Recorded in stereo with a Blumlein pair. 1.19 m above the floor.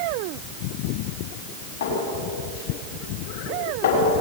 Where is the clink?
50° left, 6.5 m.